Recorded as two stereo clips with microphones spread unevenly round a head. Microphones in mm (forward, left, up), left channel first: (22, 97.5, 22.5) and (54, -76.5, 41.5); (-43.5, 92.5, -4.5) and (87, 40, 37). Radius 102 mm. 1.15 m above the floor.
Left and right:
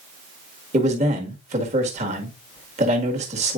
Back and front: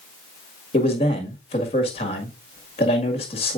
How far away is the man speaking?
About 1.5 m.